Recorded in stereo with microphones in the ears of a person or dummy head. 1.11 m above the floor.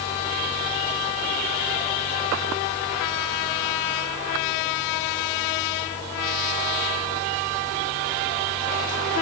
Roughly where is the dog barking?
No dog barking in this recording.